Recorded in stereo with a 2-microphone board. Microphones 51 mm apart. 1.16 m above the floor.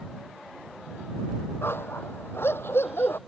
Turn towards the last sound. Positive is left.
turn(degrees=50)  # may be behind; listen again after turning